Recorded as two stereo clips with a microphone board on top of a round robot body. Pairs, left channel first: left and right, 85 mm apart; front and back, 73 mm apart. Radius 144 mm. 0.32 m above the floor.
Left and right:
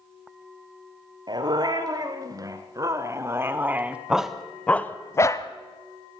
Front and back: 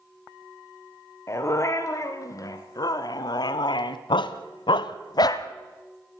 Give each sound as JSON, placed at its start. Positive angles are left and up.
{"t": 1.3, "sound": "a dog barking", "azimuth_deg": -50, "distance_m": 2.5}